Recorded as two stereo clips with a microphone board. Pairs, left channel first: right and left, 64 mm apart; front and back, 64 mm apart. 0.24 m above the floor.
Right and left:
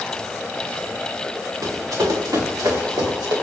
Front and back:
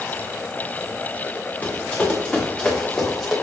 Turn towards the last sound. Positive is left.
turn(degrees=85)